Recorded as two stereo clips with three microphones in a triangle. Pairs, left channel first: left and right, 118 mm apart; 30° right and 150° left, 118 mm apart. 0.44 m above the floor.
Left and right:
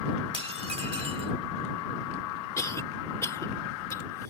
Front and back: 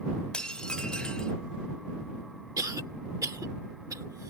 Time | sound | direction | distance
0.3 | dishes clattering | 110° right | ?
2.6 | a cough | 125° left | ?